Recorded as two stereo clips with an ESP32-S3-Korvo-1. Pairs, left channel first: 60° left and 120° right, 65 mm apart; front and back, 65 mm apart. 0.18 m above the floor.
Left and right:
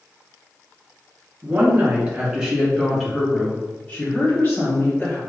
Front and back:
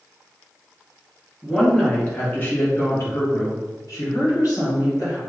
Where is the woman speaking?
80° right, 2.0 m; by 5.2 s 10° left, 3 m.